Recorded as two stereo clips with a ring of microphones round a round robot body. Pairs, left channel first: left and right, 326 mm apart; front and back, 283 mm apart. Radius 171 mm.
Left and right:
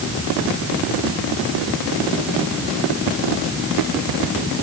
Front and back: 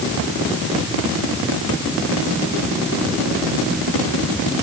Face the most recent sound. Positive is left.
No sound to turn to.